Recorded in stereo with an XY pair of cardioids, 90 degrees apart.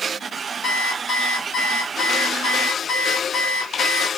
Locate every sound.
0.6 s an alarm clock: 70° left, 1.9 m